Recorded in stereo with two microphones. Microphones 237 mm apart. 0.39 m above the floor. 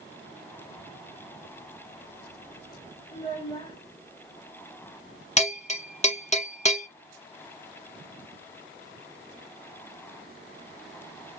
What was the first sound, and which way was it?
A child speaking, 20° left (ahead or behind).